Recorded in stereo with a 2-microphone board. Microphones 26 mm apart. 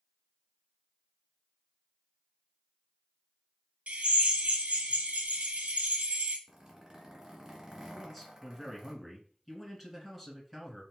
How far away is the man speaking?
About 1.6 m.